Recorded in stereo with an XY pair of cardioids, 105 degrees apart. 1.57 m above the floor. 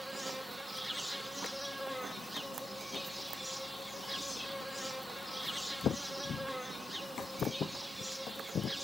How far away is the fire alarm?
No fire alarm in this recording.